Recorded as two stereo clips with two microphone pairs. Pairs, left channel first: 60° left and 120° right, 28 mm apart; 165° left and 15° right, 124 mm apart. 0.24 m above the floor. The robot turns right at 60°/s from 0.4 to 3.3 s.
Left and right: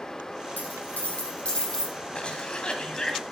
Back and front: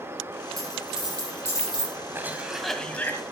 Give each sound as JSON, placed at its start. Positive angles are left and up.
{"t": 0.6, "sound": "a dropped coin", "azimuth_deg": 45, "distance_m": 5.0}
{"t": 2.1, "sound": "a cough", "azimuth_deg": 50, "distance_m": 1.8}